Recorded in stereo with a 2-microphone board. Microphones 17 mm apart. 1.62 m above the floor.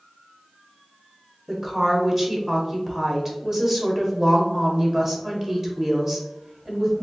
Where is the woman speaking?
15° right (ahead or behind), 1.2 m.